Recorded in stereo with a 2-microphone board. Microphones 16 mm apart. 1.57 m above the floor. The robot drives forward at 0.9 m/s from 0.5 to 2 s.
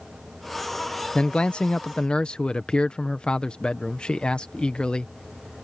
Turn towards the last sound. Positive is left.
turn(degrees=65)  # may be behind; listen again after turning